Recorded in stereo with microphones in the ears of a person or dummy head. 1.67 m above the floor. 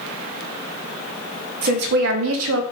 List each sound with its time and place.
1.6 s a woman speaking: 45° right (ahead or behind), 0.7 m; by 2.6 s 70° right (ahead or behind), 0.6 m